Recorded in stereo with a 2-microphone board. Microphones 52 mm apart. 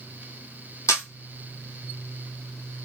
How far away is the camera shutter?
About 0.9 m.